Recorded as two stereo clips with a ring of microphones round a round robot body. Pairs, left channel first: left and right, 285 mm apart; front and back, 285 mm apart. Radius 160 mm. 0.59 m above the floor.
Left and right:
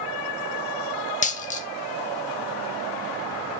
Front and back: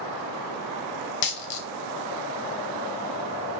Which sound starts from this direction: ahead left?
A dropped coin, at 1.2 s.